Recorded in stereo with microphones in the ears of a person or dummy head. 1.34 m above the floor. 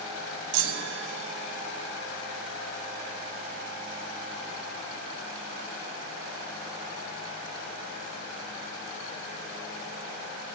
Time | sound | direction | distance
0.5 | a chime | 75° right (ahead or behind) | 1.4 m